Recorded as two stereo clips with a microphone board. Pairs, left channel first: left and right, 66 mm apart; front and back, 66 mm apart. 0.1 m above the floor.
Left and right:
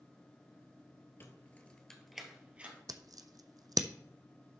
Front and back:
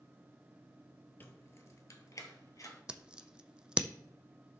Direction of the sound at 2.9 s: 100° right.